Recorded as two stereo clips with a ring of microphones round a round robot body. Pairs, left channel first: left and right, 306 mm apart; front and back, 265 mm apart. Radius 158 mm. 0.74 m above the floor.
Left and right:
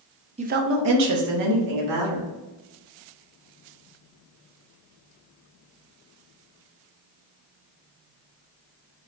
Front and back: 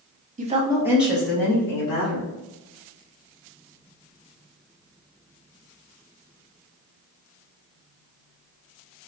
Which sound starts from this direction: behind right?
A woman speaking, at 0.4 s.